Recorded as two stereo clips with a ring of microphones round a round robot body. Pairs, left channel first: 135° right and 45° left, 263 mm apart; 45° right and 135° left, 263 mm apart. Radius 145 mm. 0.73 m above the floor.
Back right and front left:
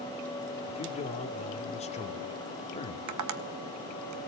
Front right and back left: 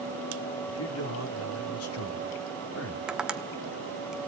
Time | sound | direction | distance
0.7 | a man speaking | 70° right | 2.5 m
3.1 | tapping | 50° left | 1.2 m